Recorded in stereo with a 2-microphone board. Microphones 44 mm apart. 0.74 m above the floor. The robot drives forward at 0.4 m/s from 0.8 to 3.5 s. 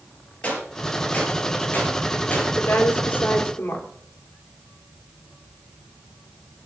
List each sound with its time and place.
0.4 s a gunshot: 30° left (ahead or behind), 5 m; by 2.5 s 35° left (ahead or behind), 4 m
2.6 s a woman speaking: 50° left (ahead or behind), 2.5 m; by 3.9 s 55° left (ahead or behind), 2.5 m